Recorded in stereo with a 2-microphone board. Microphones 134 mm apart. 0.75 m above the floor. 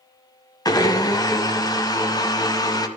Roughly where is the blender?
Left.